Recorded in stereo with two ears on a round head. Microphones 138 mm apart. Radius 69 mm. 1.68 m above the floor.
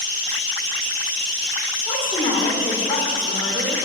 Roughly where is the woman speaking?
Left.